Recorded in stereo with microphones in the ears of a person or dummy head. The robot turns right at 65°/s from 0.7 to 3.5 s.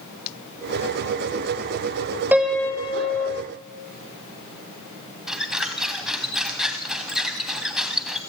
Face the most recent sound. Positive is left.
turn(degrees=-5)  # may be behind; listen again after turning